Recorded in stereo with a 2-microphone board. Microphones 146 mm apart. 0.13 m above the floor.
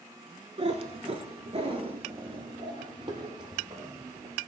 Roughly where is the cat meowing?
Right.